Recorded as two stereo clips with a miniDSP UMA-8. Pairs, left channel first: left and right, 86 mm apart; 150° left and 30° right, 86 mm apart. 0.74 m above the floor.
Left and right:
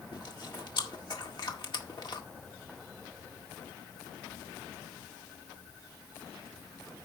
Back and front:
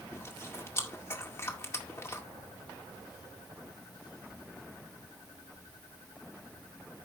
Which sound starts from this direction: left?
Chewing, at 0.1 s.